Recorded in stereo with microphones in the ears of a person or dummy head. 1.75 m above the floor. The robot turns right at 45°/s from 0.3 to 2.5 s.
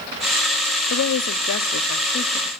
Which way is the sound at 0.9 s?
75° left.